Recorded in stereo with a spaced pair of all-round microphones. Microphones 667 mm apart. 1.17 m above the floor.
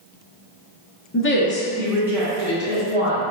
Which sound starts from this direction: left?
A woman speaking, at 1.1 s.